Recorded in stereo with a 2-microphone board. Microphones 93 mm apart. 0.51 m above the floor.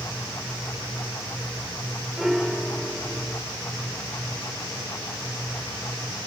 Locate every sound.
2.2 s a piano: centre (ahead or behind), 1.1 m